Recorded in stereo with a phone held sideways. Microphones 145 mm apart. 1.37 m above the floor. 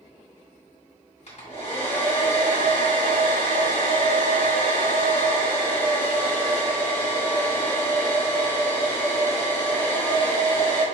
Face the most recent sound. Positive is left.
turn(degrees=50)  # may be behind; listen again after turning